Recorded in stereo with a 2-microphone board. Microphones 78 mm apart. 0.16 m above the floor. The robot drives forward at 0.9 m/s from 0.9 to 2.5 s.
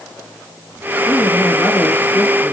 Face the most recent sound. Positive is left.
turn(degrees=20)  # may be behind; listen again after turning